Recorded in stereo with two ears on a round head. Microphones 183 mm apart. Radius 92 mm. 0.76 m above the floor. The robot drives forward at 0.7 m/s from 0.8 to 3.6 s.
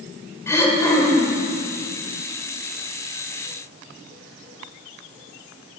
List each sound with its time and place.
0.5 s throat clearing: 15° left (ahead or behind), 1.3 m; by 1.4 s 10° left (ahead or behind), 1.7 m